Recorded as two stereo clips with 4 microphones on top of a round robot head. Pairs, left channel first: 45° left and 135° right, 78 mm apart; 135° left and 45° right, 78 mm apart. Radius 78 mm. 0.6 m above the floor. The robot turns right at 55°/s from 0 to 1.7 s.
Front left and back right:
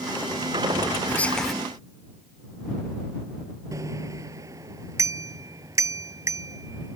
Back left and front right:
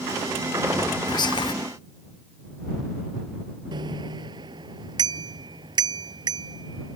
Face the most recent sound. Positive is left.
turn(degrees=-80)